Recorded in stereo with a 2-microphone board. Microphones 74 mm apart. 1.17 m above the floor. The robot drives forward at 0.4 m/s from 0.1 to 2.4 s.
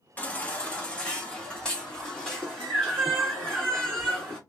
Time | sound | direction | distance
0.2 | a baby crying | 20° left (ahead or behind) | 0.7 m